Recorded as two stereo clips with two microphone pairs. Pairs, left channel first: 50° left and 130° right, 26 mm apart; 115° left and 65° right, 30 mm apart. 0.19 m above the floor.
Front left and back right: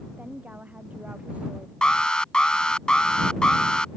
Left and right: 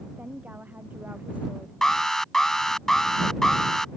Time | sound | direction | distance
0.2 | a woman speaking | 105° right | ?
1.8 | an alarm | 50° left | ?